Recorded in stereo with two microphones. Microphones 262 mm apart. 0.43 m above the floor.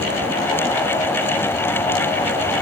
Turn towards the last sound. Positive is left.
No sound to turn to.